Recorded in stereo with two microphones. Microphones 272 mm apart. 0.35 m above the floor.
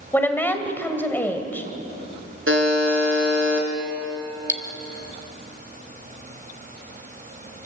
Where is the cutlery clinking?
45° right (ahead or behind), 1.4 m.